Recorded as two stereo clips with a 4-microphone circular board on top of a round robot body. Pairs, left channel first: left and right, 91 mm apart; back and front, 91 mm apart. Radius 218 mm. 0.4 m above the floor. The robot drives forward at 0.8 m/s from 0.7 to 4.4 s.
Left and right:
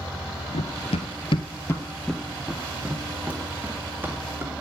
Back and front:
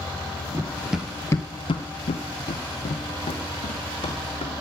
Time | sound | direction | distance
0.5 | running footsteps | 70° left | 0.9 m